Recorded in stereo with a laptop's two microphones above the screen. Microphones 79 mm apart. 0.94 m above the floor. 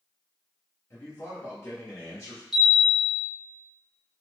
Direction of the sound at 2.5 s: Centre (ahead or behind).